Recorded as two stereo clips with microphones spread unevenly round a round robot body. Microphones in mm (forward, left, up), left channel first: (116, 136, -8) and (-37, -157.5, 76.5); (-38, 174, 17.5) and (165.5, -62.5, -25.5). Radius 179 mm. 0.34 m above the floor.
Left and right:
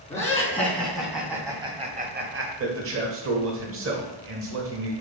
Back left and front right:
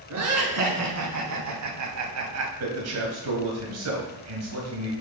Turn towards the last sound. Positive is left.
turn(degrees=-65)